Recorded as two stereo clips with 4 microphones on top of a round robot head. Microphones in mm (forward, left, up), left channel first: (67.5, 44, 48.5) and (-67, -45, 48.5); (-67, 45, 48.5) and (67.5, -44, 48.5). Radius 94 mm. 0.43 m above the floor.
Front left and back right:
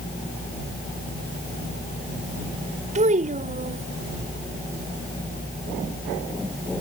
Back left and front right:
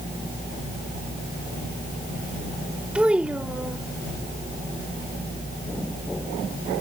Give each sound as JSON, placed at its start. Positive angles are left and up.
{"t": 3.0, "sound": "a child speaking", "azimuth_deg": -115}